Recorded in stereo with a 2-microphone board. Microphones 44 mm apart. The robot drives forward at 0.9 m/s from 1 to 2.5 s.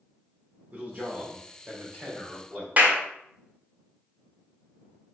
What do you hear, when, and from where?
0.7 s a man speaking: 40° right (ahead or behind), 0.9 m; by 2.7 s 20° right (ahead or behind), 1.8 m
2.8 s a clap: 35° right (ahead or behind), 0.8 m